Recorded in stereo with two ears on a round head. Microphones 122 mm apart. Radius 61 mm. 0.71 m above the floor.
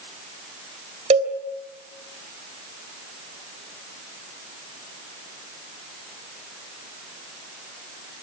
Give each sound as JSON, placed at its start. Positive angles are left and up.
{"t": 1.1, "sound": "a cowbell", "side_deg": -50, "distance_m": 3.0}